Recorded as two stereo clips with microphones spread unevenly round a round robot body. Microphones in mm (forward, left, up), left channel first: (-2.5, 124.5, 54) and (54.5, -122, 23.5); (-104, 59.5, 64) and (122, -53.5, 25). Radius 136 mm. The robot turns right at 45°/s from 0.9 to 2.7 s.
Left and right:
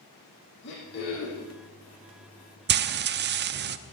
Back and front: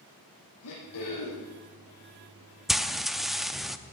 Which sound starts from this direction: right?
Frying, at 2.7 s.